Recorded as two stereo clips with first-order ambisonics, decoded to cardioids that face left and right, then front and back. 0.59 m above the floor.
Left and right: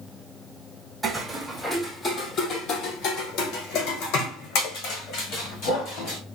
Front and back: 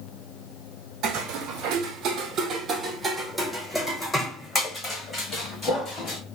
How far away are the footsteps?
About 1.1 m.